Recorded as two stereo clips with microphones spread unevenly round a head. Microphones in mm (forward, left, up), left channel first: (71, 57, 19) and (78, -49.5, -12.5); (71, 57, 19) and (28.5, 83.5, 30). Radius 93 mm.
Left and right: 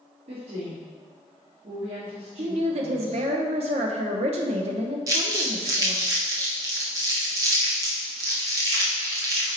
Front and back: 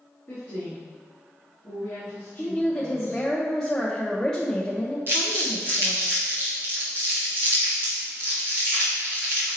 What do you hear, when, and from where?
0.3 s a woman speaking: 75° right, 2.5 m
2.4 s a woman speaking: 110° right, 0.7 m
5.1 s crumpling: 145° right, 0.9 m